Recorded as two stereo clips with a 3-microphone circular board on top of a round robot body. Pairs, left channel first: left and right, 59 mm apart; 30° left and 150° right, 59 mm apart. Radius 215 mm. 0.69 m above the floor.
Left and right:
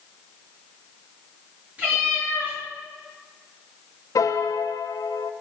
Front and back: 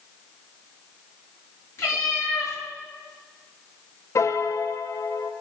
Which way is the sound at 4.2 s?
70° left.